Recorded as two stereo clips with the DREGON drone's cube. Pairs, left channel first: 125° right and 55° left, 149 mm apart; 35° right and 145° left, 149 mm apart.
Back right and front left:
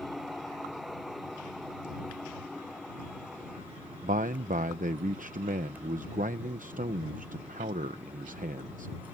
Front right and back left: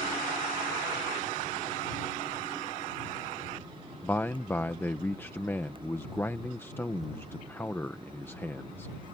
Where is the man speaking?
40° left.